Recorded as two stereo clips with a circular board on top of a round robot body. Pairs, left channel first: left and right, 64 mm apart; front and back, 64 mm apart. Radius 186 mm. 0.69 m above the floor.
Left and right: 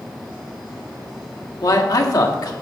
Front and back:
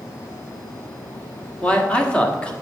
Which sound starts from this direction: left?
A man speaking, at 1.6 s.